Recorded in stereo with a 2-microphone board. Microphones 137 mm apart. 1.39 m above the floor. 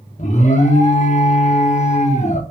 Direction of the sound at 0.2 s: 60° left (ahead or behind).